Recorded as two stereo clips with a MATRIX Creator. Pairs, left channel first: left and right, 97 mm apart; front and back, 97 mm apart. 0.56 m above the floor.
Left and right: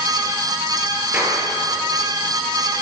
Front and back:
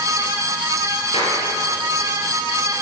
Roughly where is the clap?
Ahead.